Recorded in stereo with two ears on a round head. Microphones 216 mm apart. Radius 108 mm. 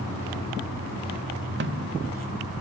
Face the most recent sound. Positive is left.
turn(degrees=-50)  # may be behind; listen again after turning